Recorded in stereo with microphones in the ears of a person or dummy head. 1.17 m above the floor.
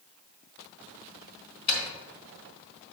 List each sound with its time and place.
1.7 s a dropped coin: 60° left (ahead or behind), 2 m